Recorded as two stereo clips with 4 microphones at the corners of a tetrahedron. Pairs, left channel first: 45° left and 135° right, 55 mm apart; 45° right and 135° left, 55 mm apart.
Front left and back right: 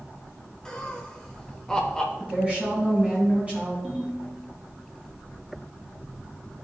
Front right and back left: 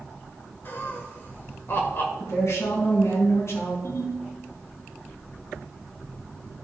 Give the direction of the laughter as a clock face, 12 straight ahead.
1 o'clock.